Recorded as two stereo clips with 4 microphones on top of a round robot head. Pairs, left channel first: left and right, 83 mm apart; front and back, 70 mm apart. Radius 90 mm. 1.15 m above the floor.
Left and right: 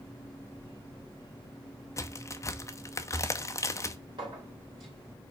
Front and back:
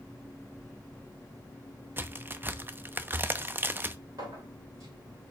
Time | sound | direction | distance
2.0 | a crack | 130° left | 0.8 m
4.2 | a clink | 135° right | 3.5 m